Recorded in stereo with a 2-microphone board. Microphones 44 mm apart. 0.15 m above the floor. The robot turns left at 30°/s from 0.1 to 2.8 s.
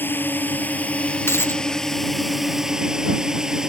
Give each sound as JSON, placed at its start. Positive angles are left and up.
{"t": 0.0, "sound": "a drone", "azimuth_deg": 65}
{"t": 1.3, "sound": "a dropped coin", "side_deg": 70}